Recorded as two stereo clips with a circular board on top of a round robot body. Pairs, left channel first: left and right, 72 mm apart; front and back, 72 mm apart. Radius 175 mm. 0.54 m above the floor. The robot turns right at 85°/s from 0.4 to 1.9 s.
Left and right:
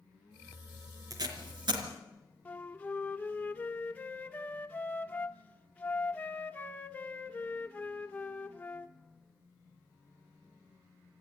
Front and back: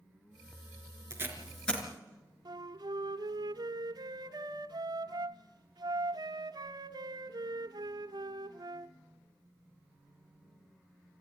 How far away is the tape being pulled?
About 3.5 m.